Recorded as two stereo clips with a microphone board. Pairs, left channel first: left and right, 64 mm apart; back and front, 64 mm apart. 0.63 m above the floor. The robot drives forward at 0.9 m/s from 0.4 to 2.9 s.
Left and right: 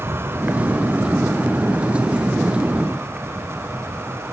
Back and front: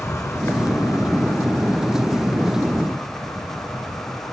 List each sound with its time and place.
0.0 s an insect: 140° right, 1.1 m; by 4.3 s 165° right, 3 m